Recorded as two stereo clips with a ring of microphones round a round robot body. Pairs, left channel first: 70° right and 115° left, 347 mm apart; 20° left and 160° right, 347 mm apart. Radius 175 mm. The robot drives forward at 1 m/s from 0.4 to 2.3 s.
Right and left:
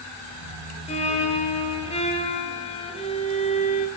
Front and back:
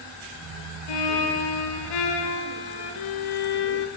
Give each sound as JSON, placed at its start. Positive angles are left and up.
{"t": 0.9, "sound": "a violin", "azimuth_deg": 5, "distance_m": 5.5}